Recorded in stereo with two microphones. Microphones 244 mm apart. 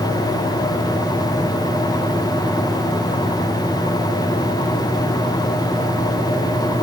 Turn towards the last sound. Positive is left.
No sound to turn to.